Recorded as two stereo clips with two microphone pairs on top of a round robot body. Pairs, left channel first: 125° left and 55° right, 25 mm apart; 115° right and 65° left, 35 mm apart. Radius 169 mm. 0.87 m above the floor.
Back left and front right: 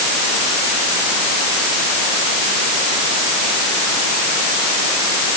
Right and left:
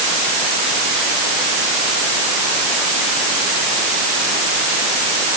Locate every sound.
Only background noise.